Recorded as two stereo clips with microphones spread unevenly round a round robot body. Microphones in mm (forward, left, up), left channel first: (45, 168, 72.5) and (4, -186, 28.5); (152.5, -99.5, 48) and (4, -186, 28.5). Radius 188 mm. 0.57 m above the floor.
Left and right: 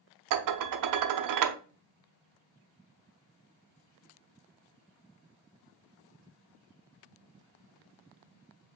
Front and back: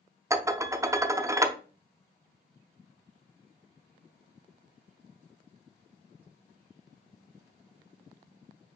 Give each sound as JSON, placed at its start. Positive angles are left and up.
{"t": 0.3, "sound": "dishes clattering", "azimuth_deg": -80, "distance_m": 0.6}